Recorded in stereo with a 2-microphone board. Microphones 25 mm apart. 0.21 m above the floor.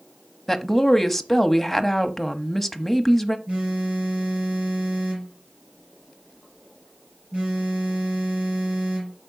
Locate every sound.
0.5 s a woman speaking: 5° left (ahead or behind), 1.0 m
3.5 s a phone buzzing: 70° right (ahead or behind), 5.5 m